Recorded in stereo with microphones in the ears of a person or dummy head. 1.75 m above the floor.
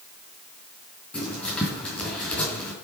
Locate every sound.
1.1 s writing: 5° left (ahead or behind), 4 m